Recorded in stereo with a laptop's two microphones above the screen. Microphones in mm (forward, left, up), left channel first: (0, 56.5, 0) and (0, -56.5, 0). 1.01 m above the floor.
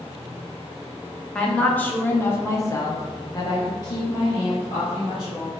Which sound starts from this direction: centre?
A woman speaking, at 1.4 s.